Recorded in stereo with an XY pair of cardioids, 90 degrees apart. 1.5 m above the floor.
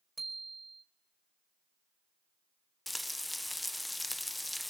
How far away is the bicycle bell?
About 5 m.